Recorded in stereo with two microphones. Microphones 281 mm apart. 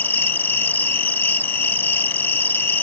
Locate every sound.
0.0 s an insect: 5° left (ahead or behind)